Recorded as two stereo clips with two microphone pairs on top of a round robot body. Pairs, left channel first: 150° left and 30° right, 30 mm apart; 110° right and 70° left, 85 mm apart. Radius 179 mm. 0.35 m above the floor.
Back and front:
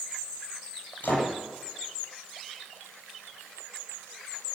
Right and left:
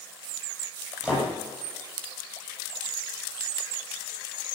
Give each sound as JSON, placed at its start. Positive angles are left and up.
{"t": 1.0, "sound": "a door slam", "azimuth_deg": 140, "distance_m": 9.5}